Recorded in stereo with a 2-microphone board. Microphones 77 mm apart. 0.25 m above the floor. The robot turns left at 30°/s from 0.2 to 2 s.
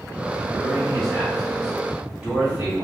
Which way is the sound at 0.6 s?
15° left.